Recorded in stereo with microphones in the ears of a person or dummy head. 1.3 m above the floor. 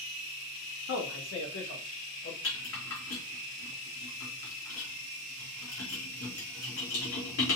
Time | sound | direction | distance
0.9 | a man speaking | 85° left | 1.7 m
2.4 | a rattle | 85° left | 3 m